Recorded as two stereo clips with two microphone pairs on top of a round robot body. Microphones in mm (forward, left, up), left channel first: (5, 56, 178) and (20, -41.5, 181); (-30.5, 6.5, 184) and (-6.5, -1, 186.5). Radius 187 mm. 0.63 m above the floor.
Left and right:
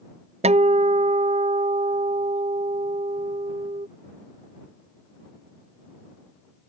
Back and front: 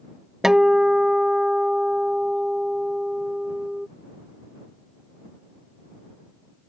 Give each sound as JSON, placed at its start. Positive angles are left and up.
{"t": 0.4, "sound": "a guitar", "azimuth_deg": -85}